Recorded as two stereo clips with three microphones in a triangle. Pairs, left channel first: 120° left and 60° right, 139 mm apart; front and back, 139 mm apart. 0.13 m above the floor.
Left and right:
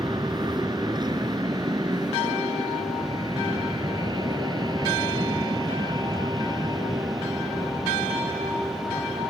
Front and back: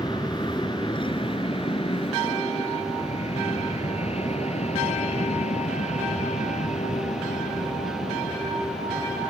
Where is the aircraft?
30° right; by 9.3 s straight ahead.